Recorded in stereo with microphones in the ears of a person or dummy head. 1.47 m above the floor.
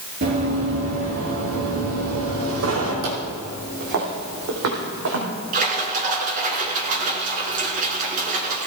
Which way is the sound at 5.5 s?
40° right (ahead or behind).